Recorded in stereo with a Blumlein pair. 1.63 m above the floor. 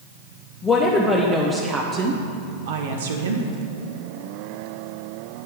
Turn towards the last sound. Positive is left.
turn(degrees=-70)